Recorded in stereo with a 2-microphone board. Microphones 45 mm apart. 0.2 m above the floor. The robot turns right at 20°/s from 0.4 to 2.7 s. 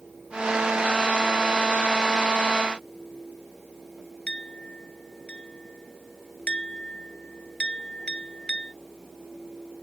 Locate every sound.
4.3 s a clink: 25° left (ahead or behind)